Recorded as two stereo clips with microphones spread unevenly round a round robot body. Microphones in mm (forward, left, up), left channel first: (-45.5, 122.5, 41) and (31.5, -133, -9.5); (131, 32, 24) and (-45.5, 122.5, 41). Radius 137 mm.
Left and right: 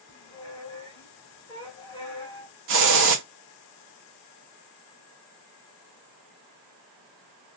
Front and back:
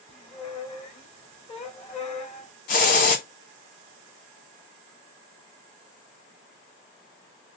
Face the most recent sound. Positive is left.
turn(degrees=-65)